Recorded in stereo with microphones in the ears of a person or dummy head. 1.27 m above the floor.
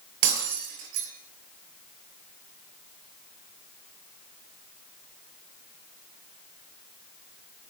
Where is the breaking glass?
70° right (ahead or behind), 6.5 m.